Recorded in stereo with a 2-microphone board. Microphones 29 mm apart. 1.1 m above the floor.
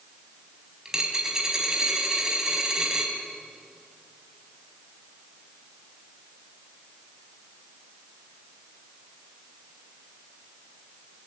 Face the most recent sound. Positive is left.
turn(degrees=-20)  # may be behind; listen again after turning